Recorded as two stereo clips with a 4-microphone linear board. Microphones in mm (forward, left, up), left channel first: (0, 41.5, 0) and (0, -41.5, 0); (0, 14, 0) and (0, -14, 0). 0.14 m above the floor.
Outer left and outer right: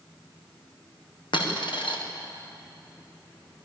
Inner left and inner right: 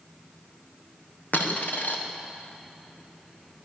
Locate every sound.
1.3 s a dropped coin: 80° left, 5 m